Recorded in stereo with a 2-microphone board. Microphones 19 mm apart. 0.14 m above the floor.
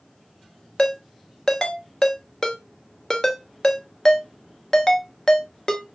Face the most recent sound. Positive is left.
turn(degrees=35)  # may be behind; listen again after turning